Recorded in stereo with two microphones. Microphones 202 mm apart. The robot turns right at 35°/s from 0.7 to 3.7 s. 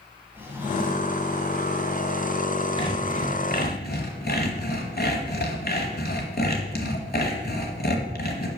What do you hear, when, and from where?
0.3 s a drawer: 10° right (ahead or behind), 1.5 m; by 1.2 s 30° right (ahead or behind), 1.5 m
2.8 s sawing: 30° left, 1.1 m; by 8.5 s 60° left, 1.1 m